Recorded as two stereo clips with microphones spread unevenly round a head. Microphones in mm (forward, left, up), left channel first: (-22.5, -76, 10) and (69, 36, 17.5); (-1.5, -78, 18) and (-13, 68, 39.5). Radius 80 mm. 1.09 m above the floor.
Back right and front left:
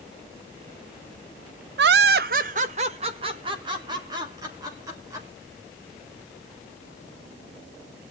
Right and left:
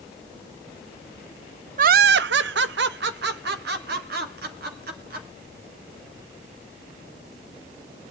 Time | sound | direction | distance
1.8 | laughter | 55° left | 0.5 m